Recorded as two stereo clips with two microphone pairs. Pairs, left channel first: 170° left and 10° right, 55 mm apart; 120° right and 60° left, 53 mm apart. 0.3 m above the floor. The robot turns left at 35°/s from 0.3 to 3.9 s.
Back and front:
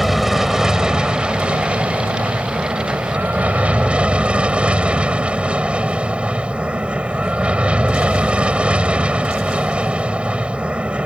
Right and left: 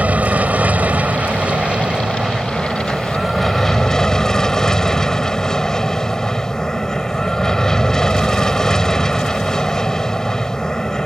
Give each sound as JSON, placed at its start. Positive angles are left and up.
{"t": 0.0, "sound": "an aircraft", "azimuth_deg": 70}